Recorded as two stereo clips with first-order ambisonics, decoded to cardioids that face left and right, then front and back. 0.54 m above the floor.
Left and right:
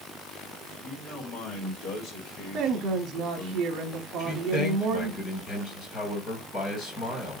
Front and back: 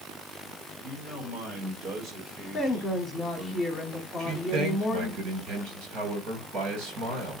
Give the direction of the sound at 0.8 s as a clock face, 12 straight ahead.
8 o'clock.